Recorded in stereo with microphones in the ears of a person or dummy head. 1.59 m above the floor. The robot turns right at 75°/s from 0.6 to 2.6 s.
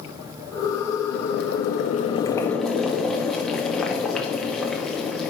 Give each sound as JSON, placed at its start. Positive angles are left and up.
{"t": 1.1, "sound": "boiling", "azimuth_deg": 65, "distance_m": 1.0}